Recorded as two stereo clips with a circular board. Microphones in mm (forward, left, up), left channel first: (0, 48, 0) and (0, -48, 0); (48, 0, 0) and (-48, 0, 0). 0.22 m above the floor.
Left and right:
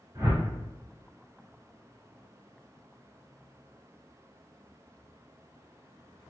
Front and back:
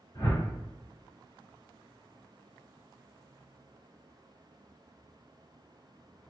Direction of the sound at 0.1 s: 45° right.